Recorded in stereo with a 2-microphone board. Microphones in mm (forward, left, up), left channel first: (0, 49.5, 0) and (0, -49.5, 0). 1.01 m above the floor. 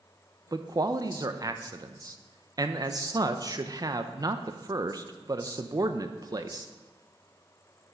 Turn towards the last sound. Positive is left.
turn(degrees=-40)  # may be behind; listen again after turning